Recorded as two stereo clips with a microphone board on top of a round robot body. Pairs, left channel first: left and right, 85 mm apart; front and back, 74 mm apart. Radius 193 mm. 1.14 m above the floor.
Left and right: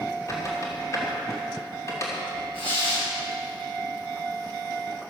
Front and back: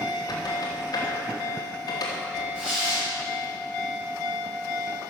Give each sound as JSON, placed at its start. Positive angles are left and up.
{"t": 0.3, "sound": "a squeak", "azimuth_deg": 35, "distance_m": 3.0}
{"t": 2.5, "sound": "tearing paper", "azimuth_deg": 100, "distance_m": 6.5}